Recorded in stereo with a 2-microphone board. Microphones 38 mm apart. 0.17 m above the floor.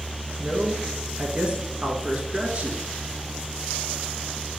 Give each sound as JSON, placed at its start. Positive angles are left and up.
{"t": 0.4, "sound": "a man speaking", "side_deg": -30, "distance_m": 2.0}